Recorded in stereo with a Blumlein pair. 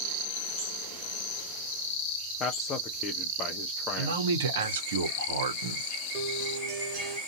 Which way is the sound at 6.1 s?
35° right.